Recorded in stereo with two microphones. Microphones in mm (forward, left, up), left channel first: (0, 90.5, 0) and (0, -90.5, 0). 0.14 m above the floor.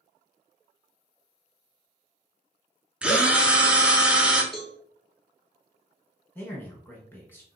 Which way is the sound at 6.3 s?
10° left (ahead or behind).